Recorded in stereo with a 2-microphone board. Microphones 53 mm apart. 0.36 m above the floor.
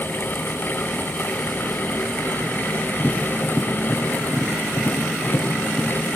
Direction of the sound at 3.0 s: 30° left (ahead or behind).